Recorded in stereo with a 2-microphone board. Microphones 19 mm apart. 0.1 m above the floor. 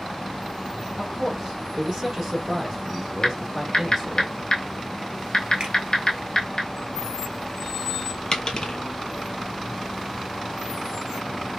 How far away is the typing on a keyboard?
About 1.1 m.